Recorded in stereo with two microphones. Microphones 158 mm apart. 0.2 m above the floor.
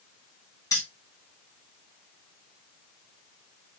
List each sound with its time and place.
0.7 s keys jangling: 25° left (ahead or behind), 1.5 m